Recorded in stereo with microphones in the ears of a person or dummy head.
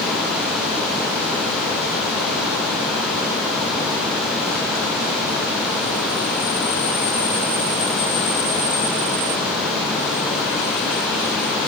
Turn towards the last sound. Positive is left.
No sound to turn to.